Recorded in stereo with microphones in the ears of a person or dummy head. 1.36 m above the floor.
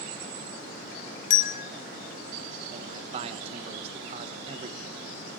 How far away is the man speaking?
About 0.7 m.